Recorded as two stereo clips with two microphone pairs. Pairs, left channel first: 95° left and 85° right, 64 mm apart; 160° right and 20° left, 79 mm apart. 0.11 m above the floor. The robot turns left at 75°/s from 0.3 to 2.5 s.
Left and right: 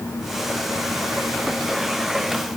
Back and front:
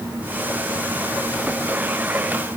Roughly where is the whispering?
I don't hear whispering.